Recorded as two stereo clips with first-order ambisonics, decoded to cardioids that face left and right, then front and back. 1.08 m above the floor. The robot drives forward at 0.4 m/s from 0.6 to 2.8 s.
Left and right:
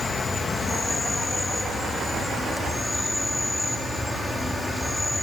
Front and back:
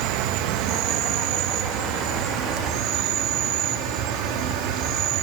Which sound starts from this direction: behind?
An insect, at 0.0 s.